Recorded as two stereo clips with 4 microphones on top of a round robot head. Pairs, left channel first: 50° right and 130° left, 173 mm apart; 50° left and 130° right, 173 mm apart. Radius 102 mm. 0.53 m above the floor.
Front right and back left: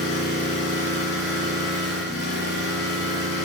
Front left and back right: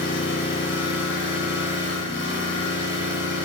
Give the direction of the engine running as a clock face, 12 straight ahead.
12 o'clock.